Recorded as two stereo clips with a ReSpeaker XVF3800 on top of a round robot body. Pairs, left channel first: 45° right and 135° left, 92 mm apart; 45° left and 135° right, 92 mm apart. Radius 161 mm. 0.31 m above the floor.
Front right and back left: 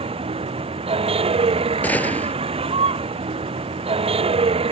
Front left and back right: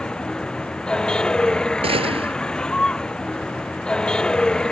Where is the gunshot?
120° right.